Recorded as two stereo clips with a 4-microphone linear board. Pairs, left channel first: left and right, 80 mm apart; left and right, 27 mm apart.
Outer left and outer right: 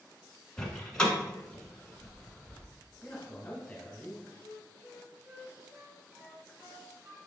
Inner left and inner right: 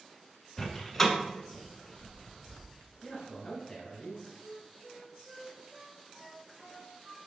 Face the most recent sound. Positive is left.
turn(degrees=-30)  # may be behind; listen again after turning